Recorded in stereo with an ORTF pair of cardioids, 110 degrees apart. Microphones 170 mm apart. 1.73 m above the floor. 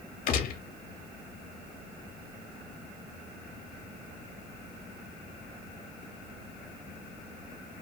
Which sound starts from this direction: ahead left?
A gunshot, at 0.3 s.